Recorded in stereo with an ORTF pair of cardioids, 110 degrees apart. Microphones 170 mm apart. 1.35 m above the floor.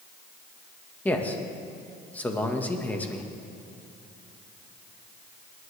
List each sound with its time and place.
1.1 s a man speaking: 10° left, 1.5 m